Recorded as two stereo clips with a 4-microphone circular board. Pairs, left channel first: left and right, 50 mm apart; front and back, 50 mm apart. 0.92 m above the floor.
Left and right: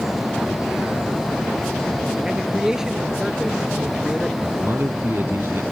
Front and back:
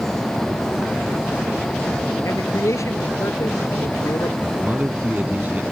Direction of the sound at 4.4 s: 125° right.